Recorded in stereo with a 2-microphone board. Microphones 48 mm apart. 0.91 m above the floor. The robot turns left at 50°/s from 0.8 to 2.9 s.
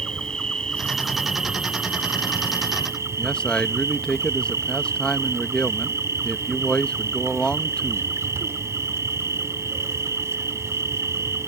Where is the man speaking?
20° left (ahead or behind).